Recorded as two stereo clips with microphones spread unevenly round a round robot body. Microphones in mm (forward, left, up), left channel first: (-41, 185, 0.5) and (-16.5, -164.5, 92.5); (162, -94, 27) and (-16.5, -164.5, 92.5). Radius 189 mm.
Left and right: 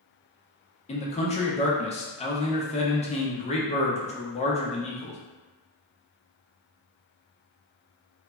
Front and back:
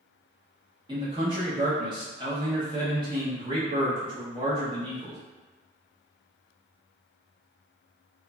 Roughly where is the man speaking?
Behind left.